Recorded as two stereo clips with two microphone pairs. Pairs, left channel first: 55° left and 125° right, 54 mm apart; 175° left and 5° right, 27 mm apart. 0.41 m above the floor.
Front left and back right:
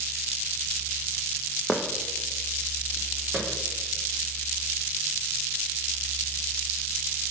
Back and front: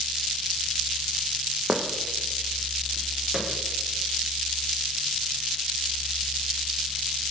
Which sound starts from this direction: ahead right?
Footsteps, at 1.7 s.